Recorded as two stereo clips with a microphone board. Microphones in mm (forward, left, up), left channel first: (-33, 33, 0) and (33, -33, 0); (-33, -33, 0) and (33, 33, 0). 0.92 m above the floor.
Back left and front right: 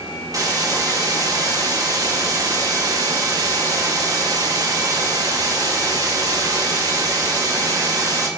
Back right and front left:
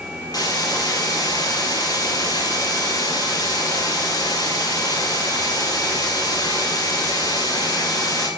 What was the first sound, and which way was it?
A hiss, 90° right.